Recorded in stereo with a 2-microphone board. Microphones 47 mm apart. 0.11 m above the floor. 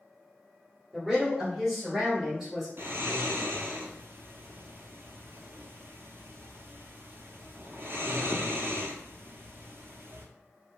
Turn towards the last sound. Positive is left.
turn(degrees=-60)  # may be behind; listen again after turning